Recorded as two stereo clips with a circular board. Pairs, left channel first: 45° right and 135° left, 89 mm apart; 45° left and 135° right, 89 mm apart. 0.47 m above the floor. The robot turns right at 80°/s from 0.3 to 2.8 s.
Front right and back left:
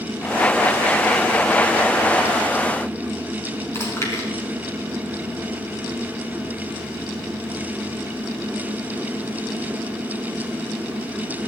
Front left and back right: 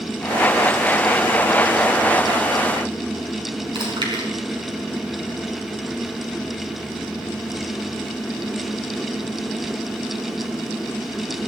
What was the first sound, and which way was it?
Chewing, 105° right.